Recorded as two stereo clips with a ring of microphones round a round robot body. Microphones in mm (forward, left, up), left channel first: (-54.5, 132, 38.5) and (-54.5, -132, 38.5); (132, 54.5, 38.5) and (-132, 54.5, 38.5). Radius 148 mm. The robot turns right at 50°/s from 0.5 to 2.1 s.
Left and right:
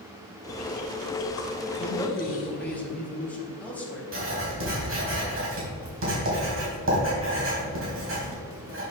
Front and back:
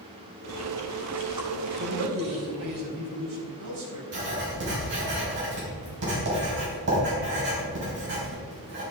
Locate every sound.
0.5 s chewing: 65° left, 3 m; by 2.8 s 145° left, 3 m
1.8 s a man speaking: 160° left, 4 m; by 4.0 s 175° left, 4 m
4.1 s writing: 130° right, 4.5 m